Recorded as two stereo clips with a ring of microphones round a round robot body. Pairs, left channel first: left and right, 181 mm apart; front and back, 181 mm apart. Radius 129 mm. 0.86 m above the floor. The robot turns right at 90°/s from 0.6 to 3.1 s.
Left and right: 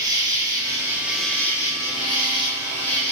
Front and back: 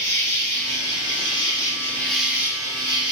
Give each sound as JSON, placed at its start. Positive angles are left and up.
{"t": 0.0, "sound": "an insect", "azimuth_deg": -50, "distance_m": 0.9}